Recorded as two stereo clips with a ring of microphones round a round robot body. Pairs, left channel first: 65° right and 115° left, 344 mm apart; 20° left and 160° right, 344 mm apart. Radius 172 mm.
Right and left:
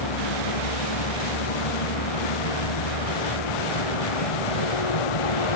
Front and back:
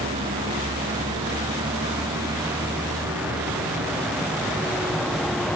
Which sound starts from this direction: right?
A vehicle, at 0.0 s.